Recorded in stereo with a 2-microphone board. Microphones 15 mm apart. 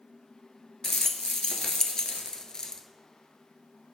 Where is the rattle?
55° left (ahead or behind), 0.5 m.